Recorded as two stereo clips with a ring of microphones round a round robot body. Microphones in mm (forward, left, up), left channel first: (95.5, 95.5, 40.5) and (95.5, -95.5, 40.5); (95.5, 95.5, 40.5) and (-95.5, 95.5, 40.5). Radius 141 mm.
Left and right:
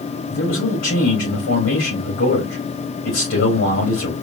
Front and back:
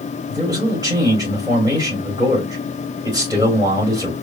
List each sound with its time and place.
0.3 s a man speaking: 110° left, 3.5 m